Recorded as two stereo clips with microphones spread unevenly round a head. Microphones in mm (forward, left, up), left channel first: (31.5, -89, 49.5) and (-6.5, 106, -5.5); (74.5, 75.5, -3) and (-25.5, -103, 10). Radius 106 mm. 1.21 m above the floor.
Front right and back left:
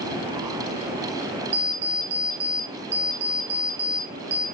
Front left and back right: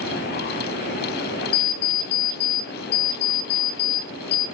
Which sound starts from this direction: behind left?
An alarm clock, at 1.5 s.